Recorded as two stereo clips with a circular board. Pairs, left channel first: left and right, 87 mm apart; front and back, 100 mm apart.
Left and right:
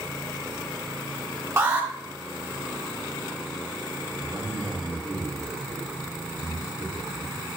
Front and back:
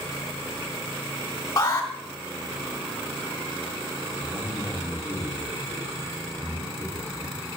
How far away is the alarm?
About 1.2 m.